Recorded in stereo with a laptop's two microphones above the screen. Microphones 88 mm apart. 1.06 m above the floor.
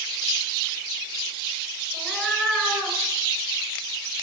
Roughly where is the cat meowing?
Centre.